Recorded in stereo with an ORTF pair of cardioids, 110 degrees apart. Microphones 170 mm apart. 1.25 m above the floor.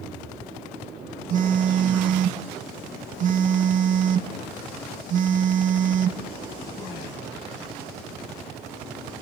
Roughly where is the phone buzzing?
Ahead right.